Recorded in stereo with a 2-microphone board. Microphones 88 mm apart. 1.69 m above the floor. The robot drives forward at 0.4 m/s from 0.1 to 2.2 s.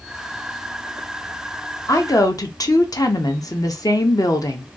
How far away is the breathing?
No breathing in this recording.